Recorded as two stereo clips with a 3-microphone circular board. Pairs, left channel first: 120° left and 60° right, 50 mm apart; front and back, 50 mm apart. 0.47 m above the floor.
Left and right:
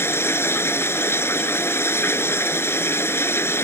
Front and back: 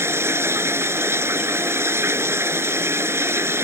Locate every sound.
0.0 s running water: 150° left